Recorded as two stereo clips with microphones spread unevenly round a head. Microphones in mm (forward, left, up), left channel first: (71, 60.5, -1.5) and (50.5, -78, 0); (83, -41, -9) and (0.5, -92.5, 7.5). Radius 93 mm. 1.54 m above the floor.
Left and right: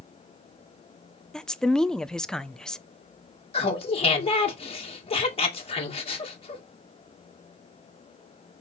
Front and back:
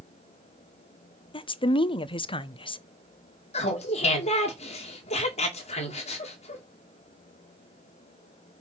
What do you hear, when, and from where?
1.3 s a woman speaking: 5° right, 0.7 m
3.5 s laughter: 35° left, 2.5 m